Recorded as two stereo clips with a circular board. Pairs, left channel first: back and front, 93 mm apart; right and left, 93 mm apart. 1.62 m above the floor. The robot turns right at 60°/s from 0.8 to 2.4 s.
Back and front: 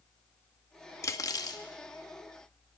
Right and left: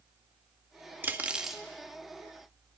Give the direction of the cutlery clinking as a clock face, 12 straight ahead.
7 o'clock.